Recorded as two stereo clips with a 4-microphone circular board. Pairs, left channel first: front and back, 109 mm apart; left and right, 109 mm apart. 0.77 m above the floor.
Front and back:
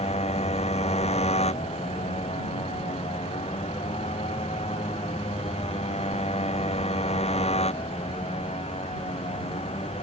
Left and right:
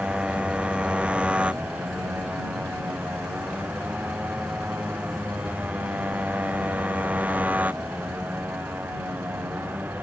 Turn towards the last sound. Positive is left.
turn(degrees=-15)